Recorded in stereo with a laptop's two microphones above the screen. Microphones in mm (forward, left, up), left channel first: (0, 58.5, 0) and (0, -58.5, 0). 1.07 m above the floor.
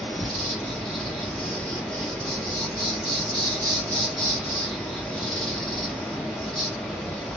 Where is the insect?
5° left (ahead or behind), 1.5 m.